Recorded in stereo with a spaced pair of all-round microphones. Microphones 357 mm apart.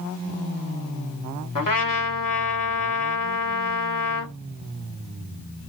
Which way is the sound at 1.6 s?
60° left (ahead or behind).